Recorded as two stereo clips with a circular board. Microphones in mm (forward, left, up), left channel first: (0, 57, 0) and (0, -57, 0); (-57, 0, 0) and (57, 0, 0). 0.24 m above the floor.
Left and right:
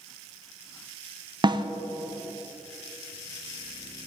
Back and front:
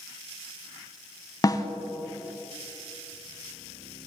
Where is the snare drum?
130° right, 0.7 m.